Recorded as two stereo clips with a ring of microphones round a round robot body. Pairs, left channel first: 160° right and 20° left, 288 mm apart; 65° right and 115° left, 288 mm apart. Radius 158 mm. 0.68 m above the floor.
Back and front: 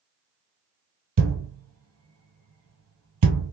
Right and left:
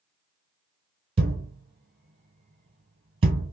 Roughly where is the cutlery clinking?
No cutlery clinking in this recording.